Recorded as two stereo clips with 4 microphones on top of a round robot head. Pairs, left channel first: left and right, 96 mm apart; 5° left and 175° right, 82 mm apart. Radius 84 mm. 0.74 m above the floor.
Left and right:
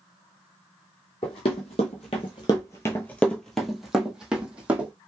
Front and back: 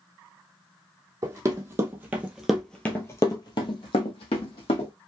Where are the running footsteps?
140° left, 1.3 m; by 4.9 s 15° right, 1.6 m.